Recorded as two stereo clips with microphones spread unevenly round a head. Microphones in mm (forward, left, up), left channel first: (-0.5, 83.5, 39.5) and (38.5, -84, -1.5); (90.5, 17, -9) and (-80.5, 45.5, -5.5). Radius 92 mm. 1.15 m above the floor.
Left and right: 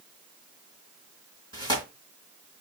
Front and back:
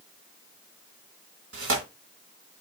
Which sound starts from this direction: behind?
Tearing paper, at 1.5 s.